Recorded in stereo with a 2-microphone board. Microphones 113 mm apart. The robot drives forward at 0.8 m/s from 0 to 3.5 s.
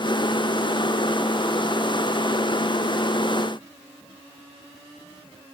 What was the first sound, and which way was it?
Only background noise.